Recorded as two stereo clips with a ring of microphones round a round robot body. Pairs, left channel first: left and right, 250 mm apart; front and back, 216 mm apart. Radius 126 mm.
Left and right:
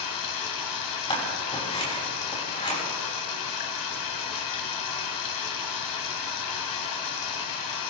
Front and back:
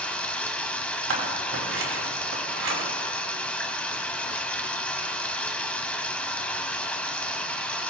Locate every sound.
0.0 s running water: 85° left, 1.8 m
1.1 s scissors: 160° left, 5.5 m